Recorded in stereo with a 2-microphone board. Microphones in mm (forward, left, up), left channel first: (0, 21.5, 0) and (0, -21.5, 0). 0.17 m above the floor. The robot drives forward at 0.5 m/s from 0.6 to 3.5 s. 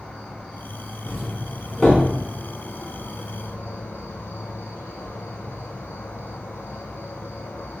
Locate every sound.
0.0 s an insect: 25° left (ahead or behind), 1.7 m; by 7.8 s 85° left, 0.7 m
1.1 s a doorbell: 15° left (ahead or behind), 1.6 m